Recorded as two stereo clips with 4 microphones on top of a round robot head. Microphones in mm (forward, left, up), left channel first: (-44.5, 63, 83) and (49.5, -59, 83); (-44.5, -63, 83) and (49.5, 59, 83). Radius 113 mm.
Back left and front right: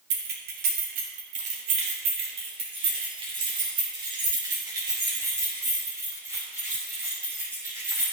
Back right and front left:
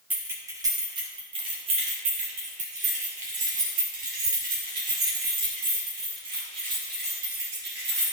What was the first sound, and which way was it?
Keys jangling, 30° right.